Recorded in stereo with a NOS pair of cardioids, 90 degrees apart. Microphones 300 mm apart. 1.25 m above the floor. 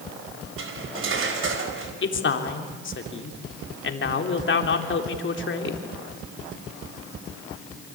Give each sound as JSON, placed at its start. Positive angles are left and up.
{"t": 0.6, "sound": "cutlery clinking", "azimuth_deg": -45, "distance_m": 4.5}
{"t": 2.0, "sound": "a man speaking", "azimuth_deg": 40, "distance_m": 3.5}